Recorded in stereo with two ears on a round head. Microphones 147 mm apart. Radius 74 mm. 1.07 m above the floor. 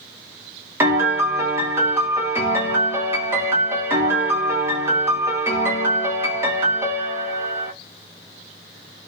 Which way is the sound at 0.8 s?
15° right (ahead or behind).